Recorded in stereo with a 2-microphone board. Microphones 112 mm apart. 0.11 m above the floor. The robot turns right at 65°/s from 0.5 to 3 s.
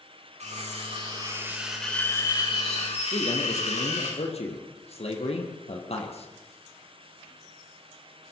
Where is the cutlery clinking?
85° right, 8 m; by 4.1 s 80° left, 8 m.